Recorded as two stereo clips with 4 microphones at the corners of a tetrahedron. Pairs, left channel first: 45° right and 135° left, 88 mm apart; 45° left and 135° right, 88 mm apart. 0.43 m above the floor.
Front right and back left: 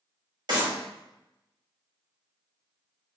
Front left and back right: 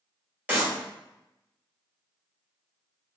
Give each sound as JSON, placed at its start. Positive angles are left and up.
{"t": 0.5, "sound": "a clap", "azimuth_deg": 150, "distance_m": 2.0}